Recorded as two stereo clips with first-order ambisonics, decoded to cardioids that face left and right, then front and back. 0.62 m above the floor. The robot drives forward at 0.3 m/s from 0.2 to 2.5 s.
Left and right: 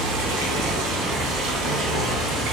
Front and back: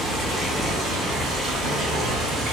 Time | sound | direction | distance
0.0 | running water | 95° right | 0.8 m